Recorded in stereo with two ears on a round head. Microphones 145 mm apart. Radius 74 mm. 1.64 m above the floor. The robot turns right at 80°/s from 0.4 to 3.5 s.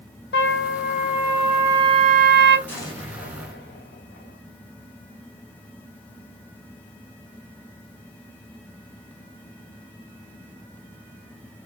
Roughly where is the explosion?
Ahead.